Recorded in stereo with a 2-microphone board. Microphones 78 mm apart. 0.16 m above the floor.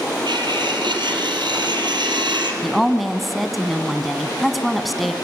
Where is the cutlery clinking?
75° right (ahead or behind), 3 m.